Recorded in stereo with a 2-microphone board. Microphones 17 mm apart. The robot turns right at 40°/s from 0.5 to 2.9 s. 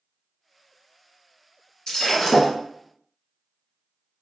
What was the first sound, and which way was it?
Breaking glass, 45° left (ahead or behind).